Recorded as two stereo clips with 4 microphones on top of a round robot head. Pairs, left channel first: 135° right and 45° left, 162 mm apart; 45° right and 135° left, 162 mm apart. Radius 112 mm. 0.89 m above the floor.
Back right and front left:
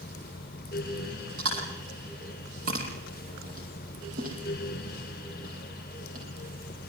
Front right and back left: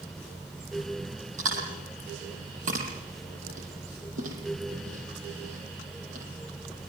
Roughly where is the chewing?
Left.